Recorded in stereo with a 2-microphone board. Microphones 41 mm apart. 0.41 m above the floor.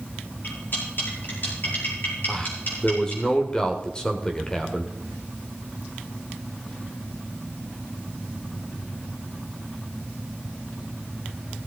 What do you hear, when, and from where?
0.4 s cutlery clinking: 50° left (ahead or behind), 5.5 m
2.3 s a man speaking: 15° left (ahead or behind), 1.6 m